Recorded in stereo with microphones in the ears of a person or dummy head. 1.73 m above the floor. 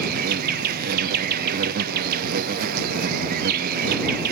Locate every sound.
0.0 s an insect: 50° right (ahead or behind)